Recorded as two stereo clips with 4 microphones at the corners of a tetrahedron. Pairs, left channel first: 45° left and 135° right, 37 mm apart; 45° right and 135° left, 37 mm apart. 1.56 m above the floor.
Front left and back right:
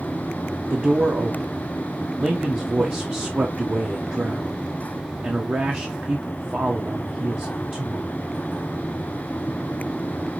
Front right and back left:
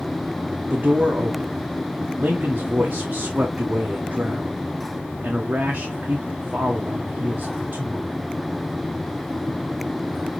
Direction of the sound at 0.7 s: 175° right.